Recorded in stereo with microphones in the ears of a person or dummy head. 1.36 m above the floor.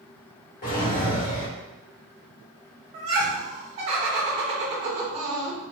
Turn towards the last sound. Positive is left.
turn(degrees=-30)  # may be behind; listen again after turning